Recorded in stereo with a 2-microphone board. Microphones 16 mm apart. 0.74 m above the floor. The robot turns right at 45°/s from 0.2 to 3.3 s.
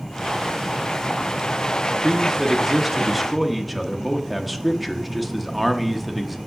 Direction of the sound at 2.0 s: 15° right (ahead or behind).